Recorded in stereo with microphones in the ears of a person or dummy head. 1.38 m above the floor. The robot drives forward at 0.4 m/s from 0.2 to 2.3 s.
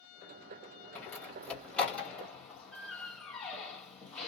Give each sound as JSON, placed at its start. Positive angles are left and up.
{"t": 0.9, "sound": "a door slam", "side_deg": 10, "distance_m": 1.6}